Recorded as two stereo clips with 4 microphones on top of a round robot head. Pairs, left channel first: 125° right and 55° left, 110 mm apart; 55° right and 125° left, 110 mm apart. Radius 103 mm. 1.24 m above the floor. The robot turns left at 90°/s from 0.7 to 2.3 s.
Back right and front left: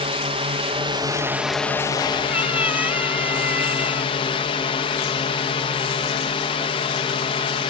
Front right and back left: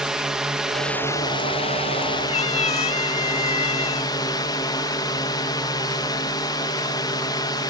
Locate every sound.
0.0 s a drone: 40° left; by 7.7 s 105° right
2.3 s a cat meowing: 20° right